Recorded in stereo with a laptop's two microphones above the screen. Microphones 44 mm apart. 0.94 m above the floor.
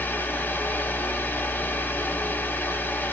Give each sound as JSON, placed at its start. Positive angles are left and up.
{"t": 0.0, "sound": "a fan", "side_deg": 45, "distance_m": 2.0}